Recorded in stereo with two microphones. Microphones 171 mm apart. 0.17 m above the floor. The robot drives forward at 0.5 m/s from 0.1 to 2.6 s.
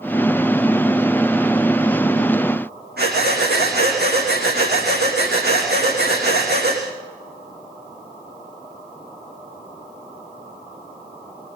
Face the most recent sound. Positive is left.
turn(degrees=-80)